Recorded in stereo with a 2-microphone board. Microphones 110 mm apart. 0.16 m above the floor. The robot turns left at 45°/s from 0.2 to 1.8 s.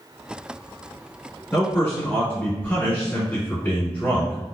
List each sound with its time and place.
1.5 s a man speaking: 20° left (ahead or behind), 1.5 m